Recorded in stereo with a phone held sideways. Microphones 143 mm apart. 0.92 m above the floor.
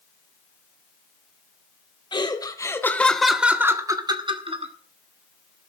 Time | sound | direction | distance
2.1 | laughter | 30° left (ahead or behind) | 2 m